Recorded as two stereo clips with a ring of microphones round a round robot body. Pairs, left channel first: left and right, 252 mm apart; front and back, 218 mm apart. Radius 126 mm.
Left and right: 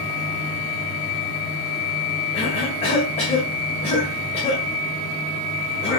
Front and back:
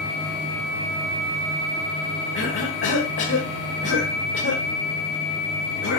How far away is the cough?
About 2.0 m.